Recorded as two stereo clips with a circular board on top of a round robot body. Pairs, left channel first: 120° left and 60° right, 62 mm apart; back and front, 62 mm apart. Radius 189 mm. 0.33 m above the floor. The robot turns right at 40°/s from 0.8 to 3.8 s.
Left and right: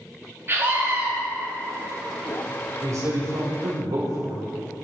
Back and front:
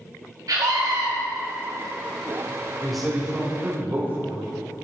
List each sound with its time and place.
0.5 s a scream: 10° right, 2.5 m; by 1.1 s straight ahead, 2.5 m
2.8 s a man speaking: 95° right, 3 m; by 4.4 s 55° right, 3 m